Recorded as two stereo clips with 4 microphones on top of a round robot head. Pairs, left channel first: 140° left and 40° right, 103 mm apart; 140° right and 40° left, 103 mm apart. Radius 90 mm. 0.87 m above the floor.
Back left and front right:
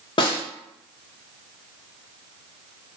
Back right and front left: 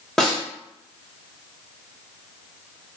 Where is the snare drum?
135° left, 1.2 m.